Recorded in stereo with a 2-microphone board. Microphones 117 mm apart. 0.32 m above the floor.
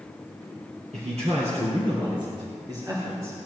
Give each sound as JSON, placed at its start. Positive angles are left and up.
{"t": 0.9, "sound": "a man speaking", "side_deg": -70, "distance_m": 3.0}